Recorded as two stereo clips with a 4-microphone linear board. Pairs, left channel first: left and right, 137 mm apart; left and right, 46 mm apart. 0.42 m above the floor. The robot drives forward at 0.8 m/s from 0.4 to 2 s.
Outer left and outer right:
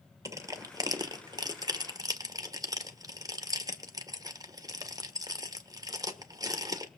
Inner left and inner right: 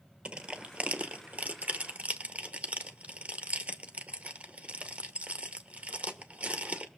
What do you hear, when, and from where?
0.2 s crushing: 25° right (ahead or behind), 1.4 m